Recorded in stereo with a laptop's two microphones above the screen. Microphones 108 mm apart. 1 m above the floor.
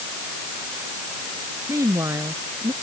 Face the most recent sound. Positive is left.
turn(degrees=-30)  # may be behind; listen again after turning